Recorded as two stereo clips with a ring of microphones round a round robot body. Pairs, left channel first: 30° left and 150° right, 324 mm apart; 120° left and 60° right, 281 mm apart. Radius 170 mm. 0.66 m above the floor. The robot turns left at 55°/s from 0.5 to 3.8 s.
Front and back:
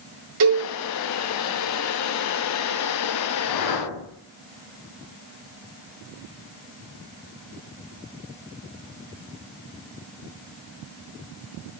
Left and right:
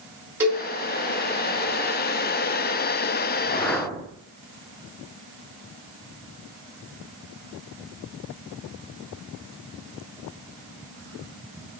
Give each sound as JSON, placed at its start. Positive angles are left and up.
{"t": 0.4, "sound": "a cowbell", "azimuth_deg": -145, "distance_m": 4.0}
{"t": 3.4, "sound": "a whoosh", "azimuth_deg": 50, "distance_m": 1.5}